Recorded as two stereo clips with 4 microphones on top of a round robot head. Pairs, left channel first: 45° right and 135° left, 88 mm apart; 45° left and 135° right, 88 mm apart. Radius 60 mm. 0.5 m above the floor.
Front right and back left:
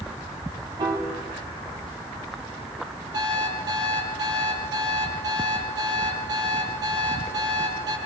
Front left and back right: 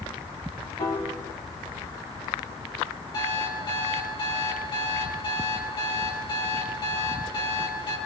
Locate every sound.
0.8 s a piano: 85° left, 5 m
3.1 s an alarm clock: 85° left, 9 m